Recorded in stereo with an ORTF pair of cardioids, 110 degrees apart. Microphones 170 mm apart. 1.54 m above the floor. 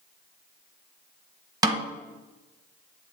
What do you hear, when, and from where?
1.6 s a snare drum: 20° right, 0.9 m